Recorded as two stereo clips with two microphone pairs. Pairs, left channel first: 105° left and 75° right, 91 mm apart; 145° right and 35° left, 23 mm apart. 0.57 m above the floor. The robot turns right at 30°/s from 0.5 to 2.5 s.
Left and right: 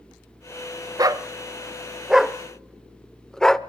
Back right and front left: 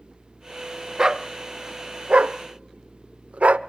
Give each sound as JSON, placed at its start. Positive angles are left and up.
{"t": 1.0, "sound": "a dog barking", "azimuth_deg": -25, "distance_m": 0.5}